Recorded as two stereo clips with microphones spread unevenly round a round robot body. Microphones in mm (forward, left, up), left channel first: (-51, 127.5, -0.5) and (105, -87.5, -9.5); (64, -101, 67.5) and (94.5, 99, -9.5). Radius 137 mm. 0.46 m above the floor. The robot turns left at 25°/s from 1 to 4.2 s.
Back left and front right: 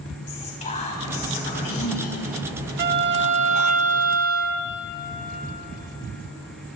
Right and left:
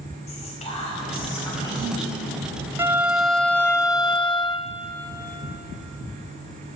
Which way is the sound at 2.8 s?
Straight ahead.